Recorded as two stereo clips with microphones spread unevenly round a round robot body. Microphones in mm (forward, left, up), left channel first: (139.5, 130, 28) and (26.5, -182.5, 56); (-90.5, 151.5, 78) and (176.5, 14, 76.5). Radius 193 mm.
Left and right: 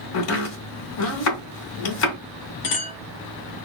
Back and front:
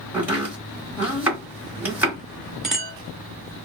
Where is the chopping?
55° left, 2 m.